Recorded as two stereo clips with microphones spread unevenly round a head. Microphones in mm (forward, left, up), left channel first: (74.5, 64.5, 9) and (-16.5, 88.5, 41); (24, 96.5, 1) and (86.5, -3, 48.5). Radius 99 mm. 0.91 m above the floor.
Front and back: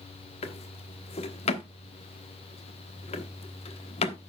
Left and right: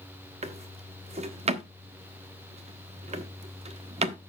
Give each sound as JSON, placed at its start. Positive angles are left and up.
{"t": 0.4, "sound": "a drawer", "azimuth_deg": -25, "distance_m": 1.1}